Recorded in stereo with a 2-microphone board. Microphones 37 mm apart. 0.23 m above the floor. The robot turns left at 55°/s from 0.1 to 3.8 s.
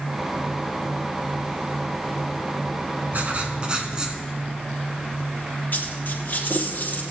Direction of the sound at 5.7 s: 50° left (ahead or behind).